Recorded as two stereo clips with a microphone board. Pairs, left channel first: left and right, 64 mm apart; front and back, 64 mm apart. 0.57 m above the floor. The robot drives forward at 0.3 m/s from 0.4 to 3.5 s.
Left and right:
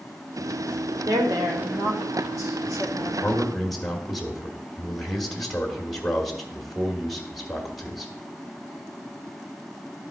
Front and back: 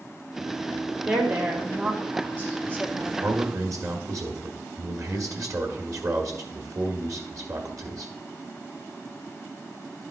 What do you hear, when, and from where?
1.1 s a woman speaking: 115° right, 1.9 m; by 3.1 s 130° right, 2 m
3.2 s a man speaking: 175° left, 1.4 m